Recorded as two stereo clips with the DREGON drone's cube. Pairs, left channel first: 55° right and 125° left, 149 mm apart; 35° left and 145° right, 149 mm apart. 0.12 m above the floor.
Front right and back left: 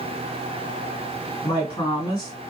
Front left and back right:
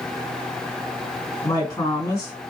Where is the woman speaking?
15° right, 1.9 m.